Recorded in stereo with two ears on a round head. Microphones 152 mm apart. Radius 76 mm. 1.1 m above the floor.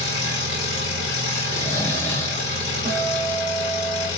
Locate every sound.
0.0 s an engine running: 80° left, 1.5 m
1.5 s snoring: 15° left (ahead or behind), 0.6 m
2.9 s a guitar: 35° right (ahead or behind), 0.9 m